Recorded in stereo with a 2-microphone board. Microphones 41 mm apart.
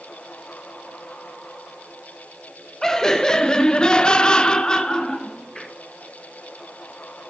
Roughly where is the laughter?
Centre.